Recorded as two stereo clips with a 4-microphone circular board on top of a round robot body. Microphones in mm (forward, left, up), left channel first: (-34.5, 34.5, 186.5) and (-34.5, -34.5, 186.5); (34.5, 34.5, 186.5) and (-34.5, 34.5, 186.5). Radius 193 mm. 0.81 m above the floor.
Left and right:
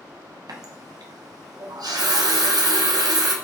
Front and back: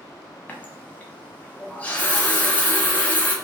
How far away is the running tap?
About 0.5 m.